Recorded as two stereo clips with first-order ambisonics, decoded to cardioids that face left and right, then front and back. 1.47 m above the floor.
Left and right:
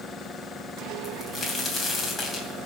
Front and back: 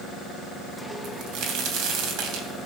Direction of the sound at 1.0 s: 170° left.